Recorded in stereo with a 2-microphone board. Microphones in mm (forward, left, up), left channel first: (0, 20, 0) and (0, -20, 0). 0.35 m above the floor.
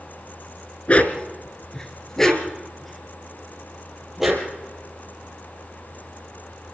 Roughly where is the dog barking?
Left.